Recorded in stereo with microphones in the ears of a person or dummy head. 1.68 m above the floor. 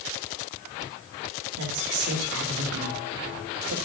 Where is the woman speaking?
65° right (ahead or behind), 2 m.